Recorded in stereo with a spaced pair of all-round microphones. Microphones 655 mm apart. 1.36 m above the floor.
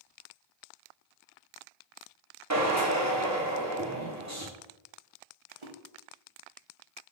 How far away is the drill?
About 0.9 m.